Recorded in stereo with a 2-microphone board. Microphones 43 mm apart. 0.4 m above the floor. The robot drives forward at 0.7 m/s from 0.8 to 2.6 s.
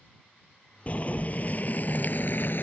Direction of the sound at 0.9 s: 30° left (ahead or behind).